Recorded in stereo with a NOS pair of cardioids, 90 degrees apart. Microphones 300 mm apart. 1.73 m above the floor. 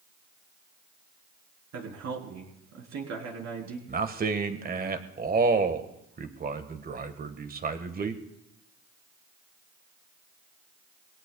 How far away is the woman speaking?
About 4 m.